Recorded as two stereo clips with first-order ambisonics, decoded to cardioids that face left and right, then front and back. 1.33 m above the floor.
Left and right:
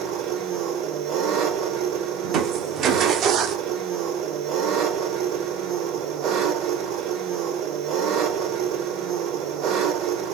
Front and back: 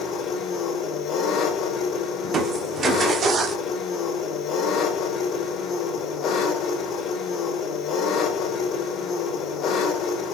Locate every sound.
0.0 s an engine running: 50° right, 3 m
2.2 s crushing: 125° right, 1.2 m